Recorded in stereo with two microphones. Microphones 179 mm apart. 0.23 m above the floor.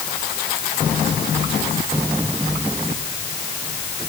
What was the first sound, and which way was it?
Only background noise.